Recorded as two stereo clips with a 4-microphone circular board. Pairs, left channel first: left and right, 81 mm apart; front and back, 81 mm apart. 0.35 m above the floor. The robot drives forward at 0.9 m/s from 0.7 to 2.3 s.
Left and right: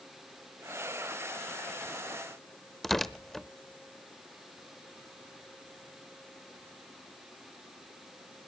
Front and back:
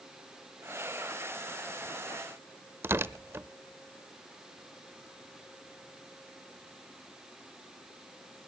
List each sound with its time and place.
2.8 s tearing paper: 175° left, 0.6 m